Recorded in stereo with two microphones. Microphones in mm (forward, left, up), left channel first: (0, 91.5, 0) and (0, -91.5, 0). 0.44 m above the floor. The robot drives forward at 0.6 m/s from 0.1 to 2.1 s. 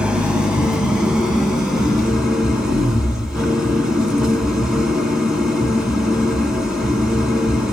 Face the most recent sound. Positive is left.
turn(degrees=-5)  # may be behind; listen again after turning